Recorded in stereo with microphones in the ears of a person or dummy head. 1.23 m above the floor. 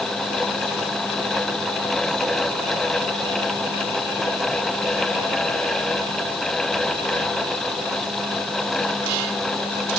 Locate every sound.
Only background noise.